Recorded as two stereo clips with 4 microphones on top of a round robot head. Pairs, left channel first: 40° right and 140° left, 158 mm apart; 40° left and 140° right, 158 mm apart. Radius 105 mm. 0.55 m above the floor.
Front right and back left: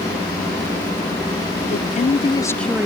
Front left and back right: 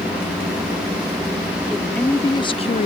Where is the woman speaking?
50° right; by 2.9 s 60° left.